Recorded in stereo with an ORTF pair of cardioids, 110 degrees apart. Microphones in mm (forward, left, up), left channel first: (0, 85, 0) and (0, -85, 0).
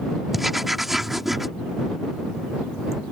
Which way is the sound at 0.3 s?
Straight ahead.